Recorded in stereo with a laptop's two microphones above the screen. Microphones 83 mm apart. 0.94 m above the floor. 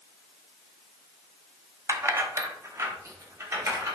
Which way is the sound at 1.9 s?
40° right (ahead or behind).